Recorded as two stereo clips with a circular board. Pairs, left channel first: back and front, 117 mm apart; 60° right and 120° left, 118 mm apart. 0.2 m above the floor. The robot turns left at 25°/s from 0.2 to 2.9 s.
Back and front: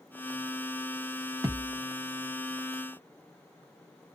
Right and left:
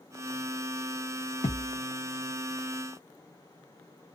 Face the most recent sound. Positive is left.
turn(degrees=-105)